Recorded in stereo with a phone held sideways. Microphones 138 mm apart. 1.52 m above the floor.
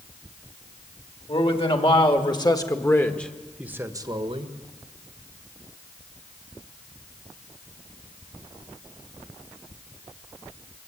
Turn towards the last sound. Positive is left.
turn(degrees=-50)  # may be behind; listen again after turning